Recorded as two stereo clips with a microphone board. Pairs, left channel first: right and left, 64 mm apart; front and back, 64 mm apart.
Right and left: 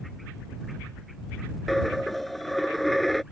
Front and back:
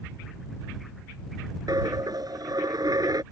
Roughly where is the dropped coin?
Behind.